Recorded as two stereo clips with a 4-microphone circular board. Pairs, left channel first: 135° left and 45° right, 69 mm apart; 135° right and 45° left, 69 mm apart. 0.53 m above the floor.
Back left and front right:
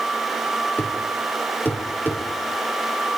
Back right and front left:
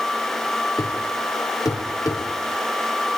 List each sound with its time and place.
0.8 s a thud: 165° right, 7 m